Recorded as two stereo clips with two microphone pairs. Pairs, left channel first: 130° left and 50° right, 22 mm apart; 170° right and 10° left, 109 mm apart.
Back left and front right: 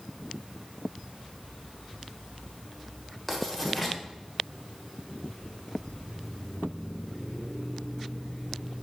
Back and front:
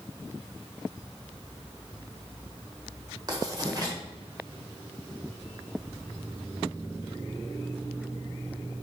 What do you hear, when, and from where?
3.3 s writing: 50° left, 1.4 m